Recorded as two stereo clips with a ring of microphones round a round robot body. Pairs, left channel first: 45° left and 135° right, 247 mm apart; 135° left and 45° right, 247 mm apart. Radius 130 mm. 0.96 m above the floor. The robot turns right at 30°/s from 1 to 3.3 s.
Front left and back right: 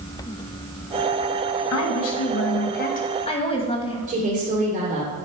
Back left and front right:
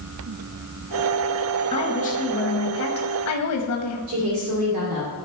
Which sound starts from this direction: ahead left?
A woman speaking, at 1.7 s.